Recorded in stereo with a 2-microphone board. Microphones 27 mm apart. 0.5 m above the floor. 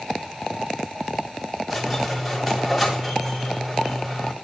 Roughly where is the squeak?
Centre.